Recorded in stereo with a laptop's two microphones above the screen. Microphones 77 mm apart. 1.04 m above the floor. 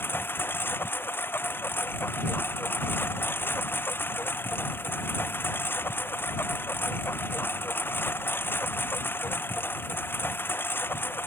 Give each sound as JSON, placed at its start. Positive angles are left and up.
{"t": 0.0, "sound": "a lawn mower", "side_deg": 30}